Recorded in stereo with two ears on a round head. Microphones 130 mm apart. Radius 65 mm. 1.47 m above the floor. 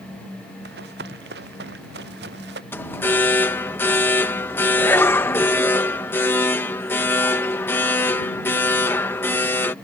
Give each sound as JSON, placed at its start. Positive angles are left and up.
{"t": 0.7, "sound": "running footsteps", "side_deg": -75}
{"t": 2.7, "sound": "an alarm", "side_deg": 15}